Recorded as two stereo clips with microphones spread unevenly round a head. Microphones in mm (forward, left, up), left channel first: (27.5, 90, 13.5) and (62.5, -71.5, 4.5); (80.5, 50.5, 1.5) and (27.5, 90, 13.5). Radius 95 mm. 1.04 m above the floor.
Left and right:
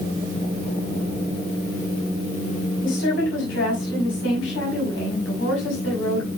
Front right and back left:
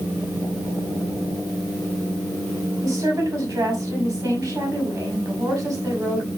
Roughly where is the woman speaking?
Left.